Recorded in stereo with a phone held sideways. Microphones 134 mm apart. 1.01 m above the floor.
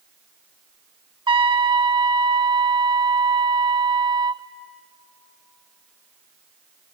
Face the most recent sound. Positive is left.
turn(degrees=-35)  # may be behind; listen again after turning